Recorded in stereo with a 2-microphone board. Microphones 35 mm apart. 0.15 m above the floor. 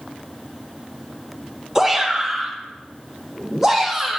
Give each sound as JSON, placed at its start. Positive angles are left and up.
{"t": 1.8, "sound": "a shout", "side_deg": -20, "distance_m": 3.5}